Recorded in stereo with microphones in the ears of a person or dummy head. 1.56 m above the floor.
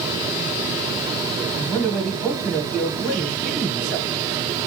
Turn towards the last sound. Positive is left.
turn(degrees=10)  # may be behind; listen again after turning